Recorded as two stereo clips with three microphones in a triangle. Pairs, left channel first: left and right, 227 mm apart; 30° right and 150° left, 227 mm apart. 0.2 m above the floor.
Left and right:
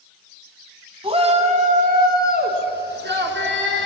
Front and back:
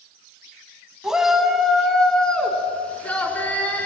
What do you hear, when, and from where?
1.0 s a shout: 125° right, 1.1 m; by 3.9 s 110° right, 2.5 m